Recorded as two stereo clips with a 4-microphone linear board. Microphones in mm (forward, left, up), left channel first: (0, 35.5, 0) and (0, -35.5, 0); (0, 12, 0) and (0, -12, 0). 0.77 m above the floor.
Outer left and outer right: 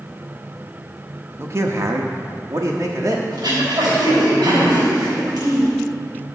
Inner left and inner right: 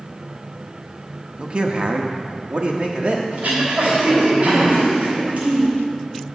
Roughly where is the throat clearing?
Right.